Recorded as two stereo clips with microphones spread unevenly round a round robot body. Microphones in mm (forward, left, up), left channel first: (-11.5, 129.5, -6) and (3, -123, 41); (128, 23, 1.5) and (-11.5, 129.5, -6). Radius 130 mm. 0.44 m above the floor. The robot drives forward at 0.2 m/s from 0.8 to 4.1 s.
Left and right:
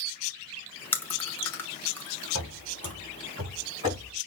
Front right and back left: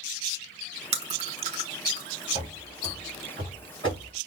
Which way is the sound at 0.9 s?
155° left.